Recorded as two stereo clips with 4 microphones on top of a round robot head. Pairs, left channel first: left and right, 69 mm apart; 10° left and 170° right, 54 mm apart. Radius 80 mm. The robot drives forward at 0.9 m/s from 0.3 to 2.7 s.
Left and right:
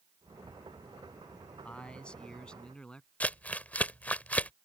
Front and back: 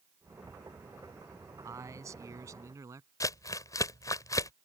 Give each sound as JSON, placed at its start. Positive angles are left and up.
{"t": 1.6, "sound": "a man speaking", "azimuth_deg": 165}
{"t": 3.2, "sound": "crumpling", "azimuth_deg": 20}